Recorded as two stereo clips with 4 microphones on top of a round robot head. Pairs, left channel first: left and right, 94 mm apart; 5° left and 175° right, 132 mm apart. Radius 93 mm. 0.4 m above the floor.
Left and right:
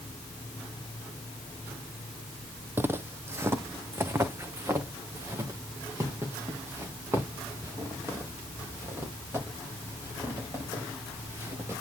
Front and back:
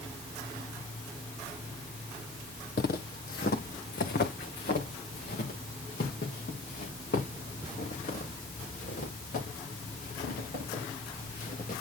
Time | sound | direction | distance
2.8 | footsteps | 25° right | 0.7 m